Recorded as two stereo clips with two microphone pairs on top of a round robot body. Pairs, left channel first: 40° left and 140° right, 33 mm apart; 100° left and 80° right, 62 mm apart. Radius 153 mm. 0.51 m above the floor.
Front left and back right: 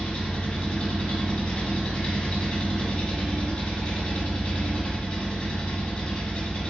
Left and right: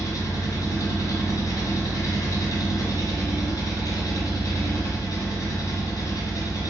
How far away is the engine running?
About 1.2 m.